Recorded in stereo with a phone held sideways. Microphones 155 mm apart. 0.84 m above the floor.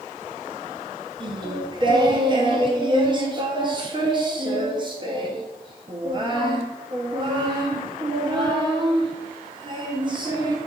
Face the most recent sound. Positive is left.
turn(degrees=-30)  # may be behind; listen again after turning